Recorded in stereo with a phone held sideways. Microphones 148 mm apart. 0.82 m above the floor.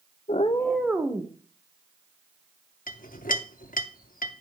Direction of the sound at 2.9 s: 75° left (ahead or behind).